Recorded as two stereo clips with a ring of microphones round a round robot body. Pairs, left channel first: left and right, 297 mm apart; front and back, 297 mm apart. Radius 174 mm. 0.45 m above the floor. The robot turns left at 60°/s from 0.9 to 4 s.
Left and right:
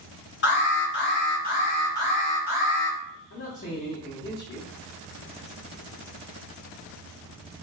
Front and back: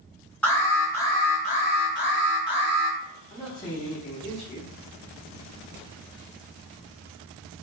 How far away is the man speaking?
About 0.9 m.